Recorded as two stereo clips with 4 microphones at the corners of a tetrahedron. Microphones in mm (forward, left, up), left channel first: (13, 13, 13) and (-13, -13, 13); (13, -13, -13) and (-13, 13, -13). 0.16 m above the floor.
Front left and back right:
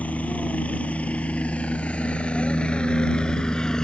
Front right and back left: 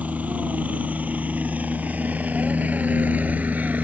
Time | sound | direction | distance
0.0 | a helicopter | 90° left | ?